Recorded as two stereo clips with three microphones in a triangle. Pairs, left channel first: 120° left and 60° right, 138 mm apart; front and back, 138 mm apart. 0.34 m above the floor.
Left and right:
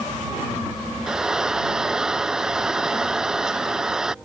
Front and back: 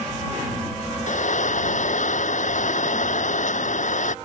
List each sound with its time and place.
1.1 s frying: 25° left